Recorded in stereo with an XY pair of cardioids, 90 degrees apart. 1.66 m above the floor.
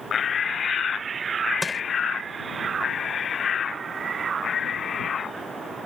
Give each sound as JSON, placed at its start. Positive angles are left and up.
{"t": 1.6, "sound": "crushing", "azimuth_deg": 5}